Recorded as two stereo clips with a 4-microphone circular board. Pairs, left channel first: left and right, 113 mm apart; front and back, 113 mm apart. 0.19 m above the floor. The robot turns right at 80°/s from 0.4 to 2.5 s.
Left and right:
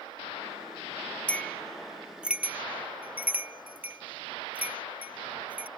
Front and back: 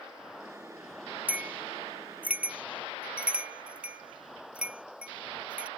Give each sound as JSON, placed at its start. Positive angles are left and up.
{"t": 1.3, "sound": "a bell", "azimuth_deg": 135}